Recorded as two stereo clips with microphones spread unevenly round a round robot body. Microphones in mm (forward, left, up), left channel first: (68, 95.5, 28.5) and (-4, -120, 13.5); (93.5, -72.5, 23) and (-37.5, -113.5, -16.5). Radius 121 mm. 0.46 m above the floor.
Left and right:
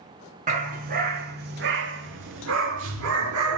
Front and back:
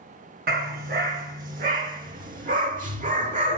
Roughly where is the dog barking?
Behind.